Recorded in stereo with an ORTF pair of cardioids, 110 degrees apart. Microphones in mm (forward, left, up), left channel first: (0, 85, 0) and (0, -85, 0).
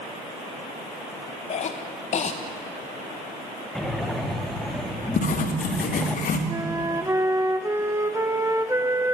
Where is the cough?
45° left, 1.4 m.